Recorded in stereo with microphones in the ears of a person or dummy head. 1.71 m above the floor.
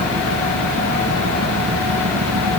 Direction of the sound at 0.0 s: 90° right.